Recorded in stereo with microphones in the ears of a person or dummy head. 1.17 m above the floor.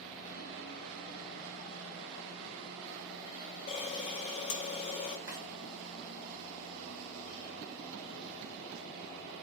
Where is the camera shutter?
35° left (ahead or behind), 0.9 m.